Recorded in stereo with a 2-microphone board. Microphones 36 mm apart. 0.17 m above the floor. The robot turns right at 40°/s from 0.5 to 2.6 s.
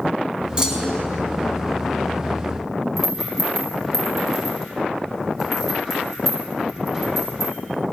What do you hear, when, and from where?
0.6 s a clunk: 20° right (ahead or behind), 0.7 m; by 1.0 s 15° right (ahead or behind), 0.7 m
3.0 s a rattle: centre (ahead or behind), 2.5 m